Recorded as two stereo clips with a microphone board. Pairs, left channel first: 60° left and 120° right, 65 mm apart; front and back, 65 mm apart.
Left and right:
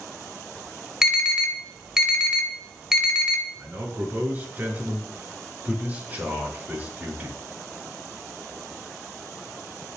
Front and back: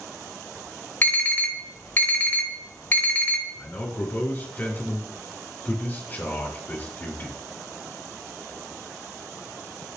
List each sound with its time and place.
1.0 s an alarm: 45° right, 2.5 m
3.5 s a man speaking: 55° right, 4.5 m